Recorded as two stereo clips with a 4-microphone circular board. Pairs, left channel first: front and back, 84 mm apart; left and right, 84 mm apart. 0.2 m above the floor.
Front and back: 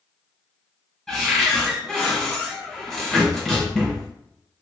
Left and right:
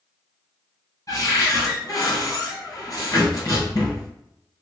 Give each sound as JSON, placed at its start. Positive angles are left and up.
{"t": 1.1, "sound": "a cupboard door", "azimuth_deg": 85, "distance_m": 1.7}